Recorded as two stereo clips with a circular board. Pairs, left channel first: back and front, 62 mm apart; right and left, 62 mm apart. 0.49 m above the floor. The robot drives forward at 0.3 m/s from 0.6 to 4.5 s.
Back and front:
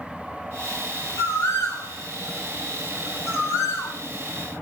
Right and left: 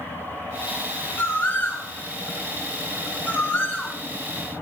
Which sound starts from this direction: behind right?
A bird, at 1.2 s.